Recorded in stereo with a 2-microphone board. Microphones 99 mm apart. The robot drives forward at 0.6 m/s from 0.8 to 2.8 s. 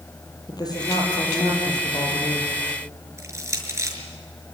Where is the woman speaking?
40° left (ahead or behind), 8 m; by 2.5 s 45° left (ahead or behind), 7 m.